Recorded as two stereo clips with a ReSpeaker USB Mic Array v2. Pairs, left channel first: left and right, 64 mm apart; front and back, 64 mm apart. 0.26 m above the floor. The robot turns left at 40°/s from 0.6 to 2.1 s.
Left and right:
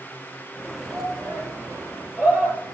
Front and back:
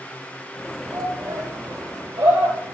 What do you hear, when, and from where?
0.9 s a shout: 130° right, 6 m; by 2.7 s 175° right, 6 m